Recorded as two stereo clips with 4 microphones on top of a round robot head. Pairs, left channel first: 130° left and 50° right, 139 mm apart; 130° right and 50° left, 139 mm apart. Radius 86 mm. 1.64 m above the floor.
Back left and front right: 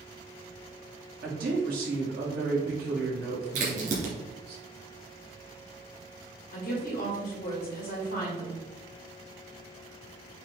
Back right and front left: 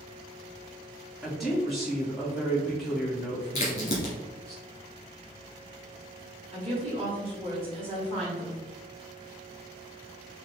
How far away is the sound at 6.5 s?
About 2 m.